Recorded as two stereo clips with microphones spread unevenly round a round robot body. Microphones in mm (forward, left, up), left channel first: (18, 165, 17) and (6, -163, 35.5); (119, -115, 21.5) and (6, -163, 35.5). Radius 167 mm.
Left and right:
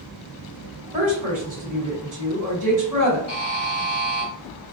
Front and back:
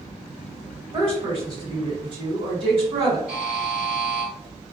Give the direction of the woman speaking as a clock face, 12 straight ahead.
5 o'clock.